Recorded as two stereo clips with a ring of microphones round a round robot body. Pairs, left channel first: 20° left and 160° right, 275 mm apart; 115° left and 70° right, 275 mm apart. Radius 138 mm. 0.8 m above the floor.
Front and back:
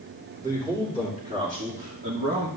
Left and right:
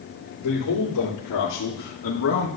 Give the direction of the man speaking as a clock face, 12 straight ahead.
8 o'clock.